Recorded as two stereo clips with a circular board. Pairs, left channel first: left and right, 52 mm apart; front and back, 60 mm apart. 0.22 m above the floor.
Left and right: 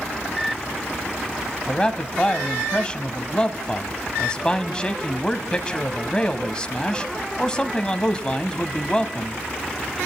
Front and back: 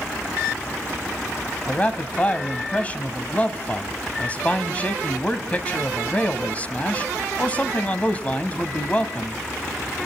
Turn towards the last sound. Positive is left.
turn(degrees=35)